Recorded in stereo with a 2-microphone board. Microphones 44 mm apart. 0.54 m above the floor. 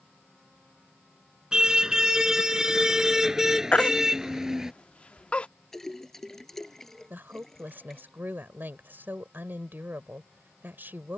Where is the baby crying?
25° left (ahead or behind).